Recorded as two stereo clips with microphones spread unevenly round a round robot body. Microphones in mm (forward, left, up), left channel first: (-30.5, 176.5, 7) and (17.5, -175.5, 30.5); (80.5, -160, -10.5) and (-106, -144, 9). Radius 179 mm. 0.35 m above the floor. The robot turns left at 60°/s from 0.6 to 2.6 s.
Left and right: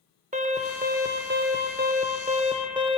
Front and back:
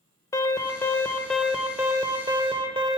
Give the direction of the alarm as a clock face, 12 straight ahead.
1 o'clock.